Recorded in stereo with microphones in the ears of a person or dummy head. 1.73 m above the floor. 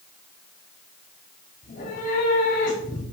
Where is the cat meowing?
45° left (ahead or behind), 5 m.